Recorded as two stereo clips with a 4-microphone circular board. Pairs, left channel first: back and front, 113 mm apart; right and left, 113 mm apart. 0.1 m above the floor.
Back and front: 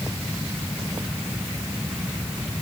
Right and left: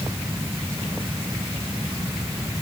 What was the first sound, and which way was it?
Only background noise.